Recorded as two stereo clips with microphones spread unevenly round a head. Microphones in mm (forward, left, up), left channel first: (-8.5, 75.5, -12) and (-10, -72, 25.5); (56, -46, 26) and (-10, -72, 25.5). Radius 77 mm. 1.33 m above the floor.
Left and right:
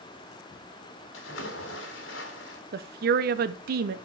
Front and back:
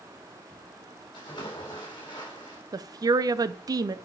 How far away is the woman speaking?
About 0.6 m.